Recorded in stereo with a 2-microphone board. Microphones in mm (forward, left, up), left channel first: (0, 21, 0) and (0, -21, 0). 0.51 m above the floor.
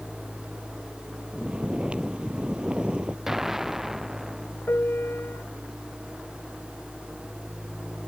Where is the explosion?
10° right (ahead or behind).